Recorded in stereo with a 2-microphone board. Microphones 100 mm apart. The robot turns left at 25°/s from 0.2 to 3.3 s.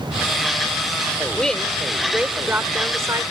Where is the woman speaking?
10° left; by 3.2 s 40° right.